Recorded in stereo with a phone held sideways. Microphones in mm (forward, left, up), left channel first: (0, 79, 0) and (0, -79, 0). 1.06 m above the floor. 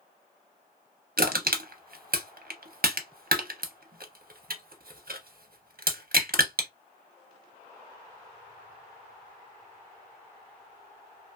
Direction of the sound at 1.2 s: 65° right (ahead or behind).